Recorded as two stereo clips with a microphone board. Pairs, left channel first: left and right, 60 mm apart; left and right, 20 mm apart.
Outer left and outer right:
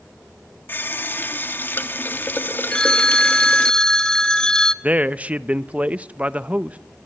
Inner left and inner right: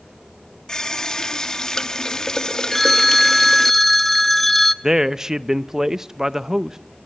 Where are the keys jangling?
I don't hear keys jangling.